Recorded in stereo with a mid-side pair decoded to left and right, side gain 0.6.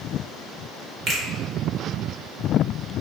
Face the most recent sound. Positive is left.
turn(degrees=-40)